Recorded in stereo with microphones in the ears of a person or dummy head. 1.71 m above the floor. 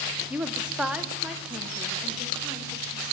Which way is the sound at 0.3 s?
5° right (ahead or behind).